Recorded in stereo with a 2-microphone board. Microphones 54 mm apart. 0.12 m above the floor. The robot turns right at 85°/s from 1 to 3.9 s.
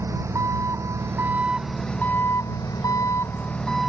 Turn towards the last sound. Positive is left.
turn(degrees=-175)